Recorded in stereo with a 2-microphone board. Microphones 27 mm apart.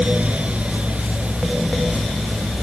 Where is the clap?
I don't hear a clap.